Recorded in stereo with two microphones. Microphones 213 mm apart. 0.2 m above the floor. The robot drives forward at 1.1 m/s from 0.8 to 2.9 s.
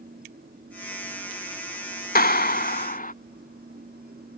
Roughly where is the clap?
Left.